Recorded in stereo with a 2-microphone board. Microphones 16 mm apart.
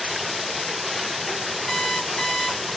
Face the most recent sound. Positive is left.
turn(degrees=45)  # may be behind; listen again after turning